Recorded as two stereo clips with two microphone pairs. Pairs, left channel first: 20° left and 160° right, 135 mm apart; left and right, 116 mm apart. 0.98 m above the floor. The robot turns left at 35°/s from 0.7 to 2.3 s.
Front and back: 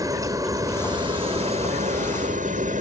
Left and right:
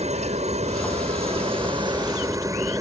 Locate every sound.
0.0 s a helicopter: 95° right; by 2.8 s 150° right